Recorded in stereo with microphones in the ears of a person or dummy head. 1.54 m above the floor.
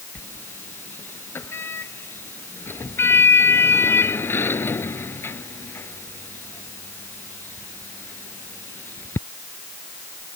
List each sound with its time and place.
0.1 s a sliding door: 10° left (ahead or behind)